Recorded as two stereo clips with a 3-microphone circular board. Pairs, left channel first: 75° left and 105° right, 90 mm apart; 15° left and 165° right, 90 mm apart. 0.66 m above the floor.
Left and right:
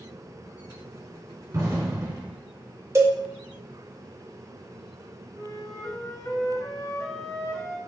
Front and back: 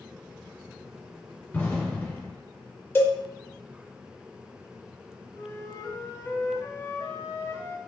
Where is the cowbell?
50° right, 0.6 m.